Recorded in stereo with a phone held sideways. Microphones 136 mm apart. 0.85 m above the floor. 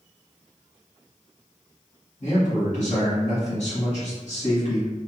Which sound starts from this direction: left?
A man speaking, at 2.2 s.